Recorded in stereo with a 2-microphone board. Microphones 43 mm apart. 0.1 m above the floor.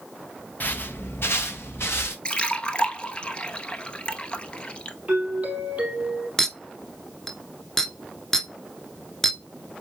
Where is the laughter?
No laughter in this recording.